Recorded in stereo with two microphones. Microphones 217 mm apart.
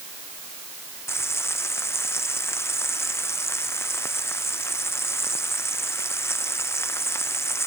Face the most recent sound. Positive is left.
turn(degrees=10)  # may be behind; listen again after turning